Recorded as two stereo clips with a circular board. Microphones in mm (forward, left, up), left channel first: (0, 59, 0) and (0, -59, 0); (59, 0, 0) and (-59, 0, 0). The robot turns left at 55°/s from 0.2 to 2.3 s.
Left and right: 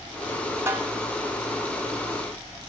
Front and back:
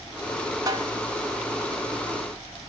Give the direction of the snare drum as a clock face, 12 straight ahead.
5 o'clock.